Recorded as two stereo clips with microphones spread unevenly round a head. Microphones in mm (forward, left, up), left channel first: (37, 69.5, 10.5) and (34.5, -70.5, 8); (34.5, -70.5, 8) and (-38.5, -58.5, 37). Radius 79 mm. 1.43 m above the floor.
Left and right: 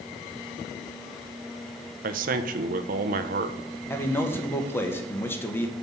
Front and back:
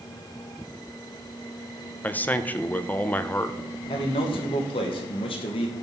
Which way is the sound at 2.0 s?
90° right.